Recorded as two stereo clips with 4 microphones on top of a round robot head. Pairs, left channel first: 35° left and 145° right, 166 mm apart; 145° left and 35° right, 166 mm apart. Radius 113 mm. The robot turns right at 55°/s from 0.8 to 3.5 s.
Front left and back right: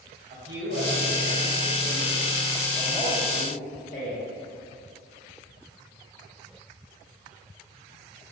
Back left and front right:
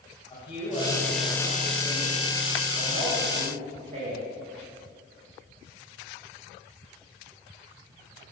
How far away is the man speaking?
About 3 m.